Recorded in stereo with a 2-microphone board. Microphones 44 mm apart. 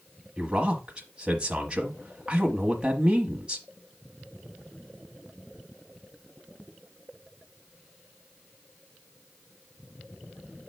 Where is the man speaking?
20° right (ahead or behind), 1.1 m.